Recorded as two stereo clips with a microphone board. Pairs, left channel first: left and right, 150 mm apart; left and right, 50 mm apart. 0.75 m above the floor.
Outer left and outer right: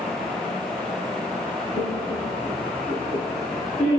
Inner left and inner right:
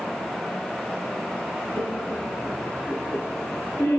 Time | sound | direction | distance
1.7 | laughter | 65° left (ahead or behind) | 6.5 m